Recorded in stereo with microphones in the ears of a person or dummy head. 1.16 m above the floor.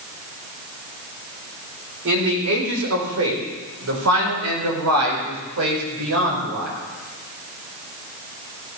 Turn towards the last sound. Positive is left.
turn(degrees=-65)  # may be behind; listen again after turning